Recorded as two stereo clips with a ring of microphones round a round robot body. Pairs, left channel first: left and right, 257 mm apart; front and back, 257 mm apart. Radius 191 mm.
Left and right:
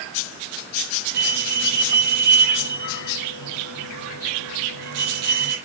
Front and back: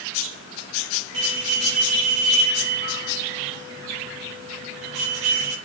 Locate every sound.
1.1 s a bell: 125° right, 6 m